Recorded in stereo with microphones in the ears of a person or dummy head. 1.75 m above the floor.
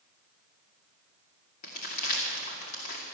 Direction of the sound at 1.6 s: 45° left (ahead or behind).